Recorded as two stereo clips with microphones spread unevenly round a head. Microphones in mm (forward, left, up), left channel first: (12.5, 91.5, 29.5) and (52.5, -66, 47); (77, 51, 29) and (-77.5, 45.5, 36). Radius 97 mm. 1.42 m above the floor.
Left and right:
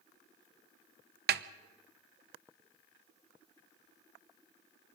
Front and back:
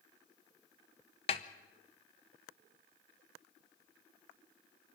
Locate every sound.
1.3 s a snare drum: 60° right, 0.6 m